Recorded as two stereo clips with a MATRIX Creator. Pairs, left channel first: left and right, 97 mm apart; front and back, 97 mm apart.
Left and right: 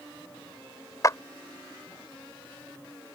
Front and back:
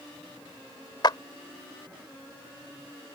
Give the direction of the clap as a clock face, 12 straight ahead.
11 o'clock.